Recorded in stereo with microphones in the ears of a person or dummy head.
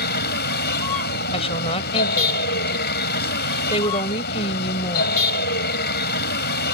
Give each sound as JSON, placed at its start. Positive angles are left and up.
{"t": 0.0, "sound": "a vehicle", "side_deg": 55}
{"t": 1.3, "sound": "a woman speaking", "side_deg": 30}